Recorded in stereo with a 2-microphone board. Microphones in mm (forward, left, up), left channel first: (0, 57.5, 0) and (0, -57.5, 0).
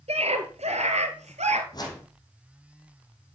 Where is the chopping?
I don't hear chopping.